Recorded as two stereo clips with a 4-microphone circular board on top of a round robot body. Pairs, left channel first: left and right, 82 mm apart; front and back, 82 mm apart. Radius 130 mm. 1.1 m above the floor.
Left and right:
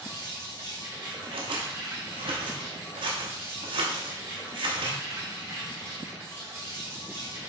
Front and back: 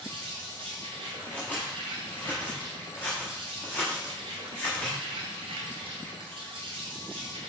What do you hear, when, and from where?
0.0 s an insect: 160° right, 0.9 m
1.2 s scissors: 80° right, 0.7 m